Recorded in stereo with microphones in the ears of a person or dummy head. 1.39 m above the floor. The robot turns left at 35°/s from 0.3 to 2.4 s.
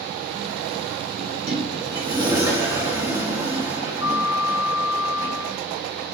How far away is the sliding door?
About 2.0 m.